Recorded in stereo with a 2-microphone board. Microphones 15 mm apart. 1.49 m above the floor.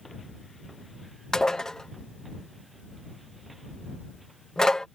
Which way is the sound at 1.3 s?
50° left (ahead or behind).